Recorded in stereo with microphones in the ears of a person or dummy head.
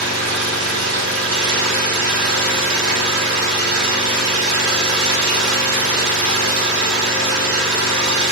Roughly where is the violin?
I don't hear a violin.